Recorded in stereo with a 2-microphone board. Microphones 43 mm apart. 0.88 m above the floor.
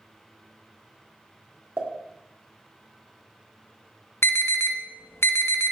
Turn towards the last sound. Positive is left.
turn(degrees=70)  # may be behind; listen again after turning